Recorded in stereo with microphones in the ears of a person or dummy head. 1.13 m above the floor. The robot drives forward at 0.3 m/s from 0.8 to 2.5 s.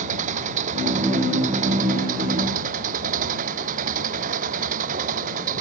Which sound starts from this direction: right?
An engine running, at 0.0 s.